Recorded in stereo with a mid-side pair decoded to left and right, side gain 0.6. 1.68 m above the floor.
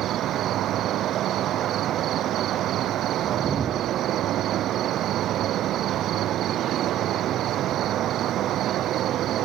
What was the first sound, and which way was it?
An insect, 55° right.